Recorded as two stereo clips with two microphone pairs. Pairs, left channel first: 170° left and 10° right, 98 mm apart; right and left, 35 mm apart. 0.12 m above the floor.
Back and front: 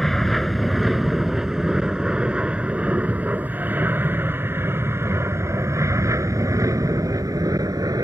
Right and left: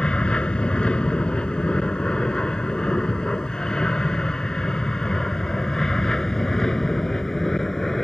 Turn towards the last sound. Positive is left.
turn(degrees=-20)